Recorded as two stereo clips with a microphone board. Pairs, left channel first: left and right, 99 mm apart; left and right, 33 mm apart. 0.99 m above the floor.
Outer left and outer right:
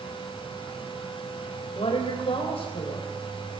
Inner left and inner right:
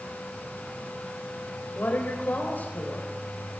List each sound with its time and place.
1.8 s a woman speaking: 85° left, 4 m